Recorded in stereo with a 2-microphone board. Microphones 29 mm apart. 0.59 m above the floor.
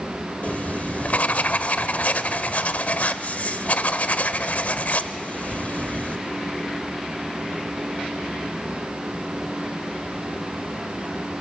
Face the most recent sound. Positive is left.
turn(degrees=65)  # may be behind; listen again after turning